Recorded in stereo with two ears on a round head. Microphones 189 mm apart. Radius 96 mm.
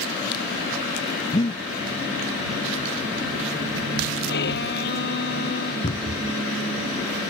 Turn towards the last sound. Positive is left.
turn(degrees=30)  # may be behind; listen again after turning